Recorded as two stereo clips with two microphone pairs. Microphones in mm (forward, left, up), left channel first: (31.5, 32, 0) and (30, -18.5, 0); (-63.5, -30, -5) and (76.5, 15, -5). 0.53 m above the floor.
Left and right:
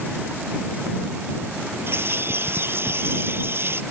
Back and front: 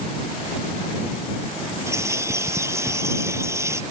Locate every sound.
1.9 s a bird: 55° right